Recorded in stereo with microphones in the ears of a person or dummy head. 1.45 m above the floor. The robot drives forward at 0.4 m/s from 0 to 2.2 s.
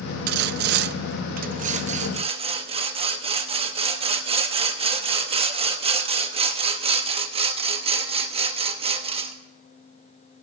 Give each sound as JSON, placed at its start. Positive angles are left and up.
{"t": 0.3, "sound": "sawing", "side_deg": -50, "distance_m": 0.5}